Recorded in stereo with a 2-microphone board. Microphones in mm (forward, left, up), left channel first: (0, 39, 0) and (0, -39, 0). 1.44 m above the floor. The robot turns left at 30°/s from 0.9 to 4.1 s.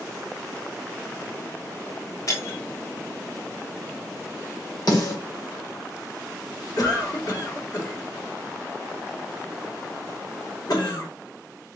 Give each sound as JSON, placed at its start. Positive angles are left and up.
{"t": 2.3, "sound": "breaking glass", "side_deg": 55, "distance_m": 2.0}
{"t": 4.9, "sound": "a snare drum", "side_deg": 60, "distance_m": 2.0}
{"t": 6.8, "sound": "a cough", "side_deg": 60, "distance_m": 2.0}